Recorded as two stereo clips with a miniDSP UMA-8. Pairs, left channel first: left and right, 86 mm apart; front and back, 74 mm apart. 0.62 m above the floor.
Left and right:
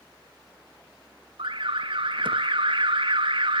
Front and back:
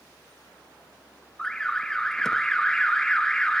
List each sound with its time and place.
1.4 s an alarm: 80° right, 0.6 m